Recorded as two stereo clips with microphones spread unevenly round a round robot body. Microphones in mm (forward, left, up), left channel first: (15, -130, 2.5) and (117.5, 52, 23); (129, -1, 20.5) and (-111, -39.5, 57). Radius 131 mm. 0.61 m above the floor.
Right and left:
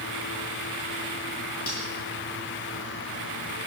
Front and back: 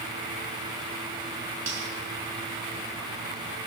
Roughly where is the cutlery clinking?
Behind right.